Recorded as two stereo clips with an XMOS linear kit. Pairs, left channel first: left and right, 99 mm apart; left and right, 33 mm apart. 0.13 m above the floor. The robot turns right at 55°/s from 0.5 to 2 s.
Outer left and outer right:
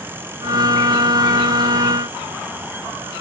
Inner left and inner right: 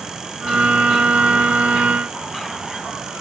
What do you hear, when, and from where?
Only background noise.